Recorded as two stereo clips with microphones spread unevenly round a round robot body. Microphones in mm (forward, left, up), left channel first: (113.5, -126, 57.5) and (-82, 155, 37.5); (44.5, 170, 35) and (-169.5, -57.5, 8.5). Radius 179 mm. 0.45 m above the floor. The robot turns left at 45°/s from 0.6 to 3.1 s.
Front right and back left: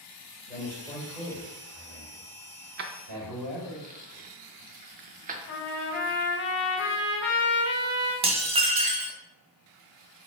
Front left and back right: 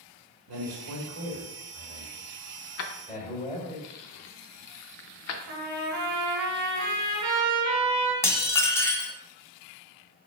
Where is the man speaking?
135° right, 1.8 m; by 3.8 s 110° left, 1.8 m.